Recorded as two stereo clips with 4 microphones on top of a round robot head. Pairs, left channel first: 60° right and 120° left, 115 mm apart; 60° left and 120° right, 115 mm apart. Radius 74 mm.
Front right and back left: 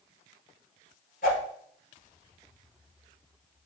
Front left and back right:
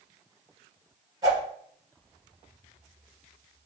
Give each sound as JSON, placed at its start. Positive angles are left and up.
{"t": 1.2, "sound": "a whoosh", "azimuth_deg": -60, "distance_m": 2.0}